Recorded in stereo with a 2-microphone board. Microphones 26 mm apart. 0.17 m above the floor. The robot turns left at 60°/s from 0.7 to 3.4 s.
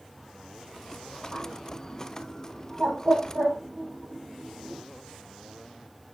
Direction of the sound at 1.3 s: 20° left (ahead or behind).